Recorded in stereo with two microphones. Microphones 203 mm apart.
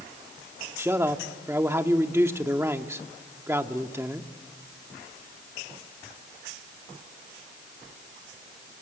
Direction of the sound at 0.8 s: 10° right (ahead or behind).